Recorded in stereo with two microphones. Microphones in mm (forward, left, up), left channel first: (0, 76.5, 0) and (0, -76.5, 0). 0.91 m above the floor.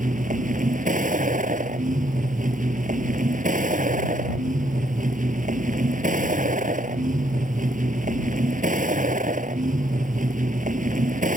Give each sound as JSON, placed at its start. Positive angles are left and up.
{"t": 0.0, "sound": "a vehicle", "side_deg": -65}